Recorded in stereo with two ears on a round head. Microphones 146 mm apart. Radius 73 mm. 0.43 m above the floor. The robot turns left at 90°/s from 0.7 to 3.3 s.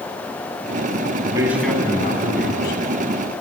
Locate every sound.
1.2 s a man speaking: 145° right, 4 m; by 2.8 s 75° left, 4 m